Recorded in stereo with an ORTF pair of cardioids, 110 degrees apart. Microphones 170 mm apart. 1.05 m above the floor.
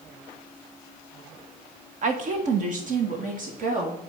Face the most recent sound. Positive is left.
turn(degrees=-50)